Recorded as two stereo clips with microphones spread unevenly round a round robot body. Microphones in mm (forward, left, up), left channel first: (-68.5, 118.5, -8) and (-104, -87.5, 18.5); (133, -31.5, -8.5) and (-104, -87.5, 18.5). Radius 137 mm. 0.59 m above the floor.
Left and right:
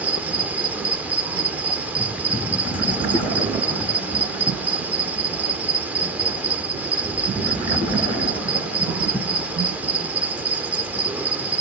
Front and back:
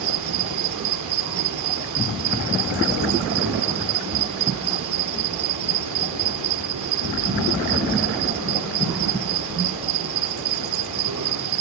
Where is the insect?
175° left, 0.9 m.